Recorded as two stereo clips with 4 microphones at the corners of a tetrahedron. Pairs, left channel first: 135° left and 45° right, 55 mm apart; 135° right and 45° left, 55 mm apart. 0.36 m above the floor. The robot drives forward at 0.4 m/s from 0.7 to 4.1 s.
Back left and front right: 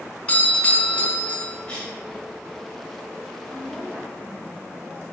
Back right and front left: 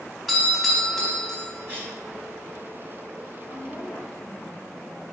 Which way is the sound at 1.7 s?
70° left.